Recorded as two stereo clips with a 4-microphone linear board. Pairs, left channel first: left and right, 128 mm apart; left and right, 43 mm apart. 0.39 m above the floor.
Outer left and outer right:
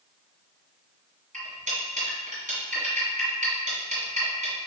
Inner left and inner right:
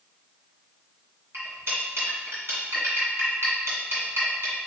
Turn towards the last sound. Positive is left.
turn(degrees=-75)  # may be behind; listen again after turning